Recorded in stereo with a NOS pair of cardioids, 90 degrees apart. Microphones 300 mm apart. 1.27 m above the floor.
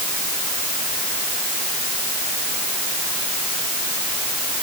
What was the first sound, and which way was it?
Only background noise.